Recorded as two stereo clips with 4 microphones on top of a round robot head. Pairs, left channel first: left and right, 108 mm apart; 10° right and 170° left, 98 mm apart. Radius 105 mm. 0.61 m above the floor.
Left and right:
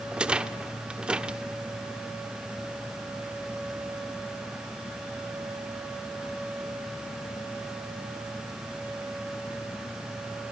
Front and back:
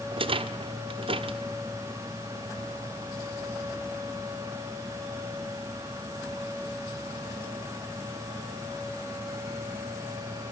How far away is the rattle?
About 1.4 m.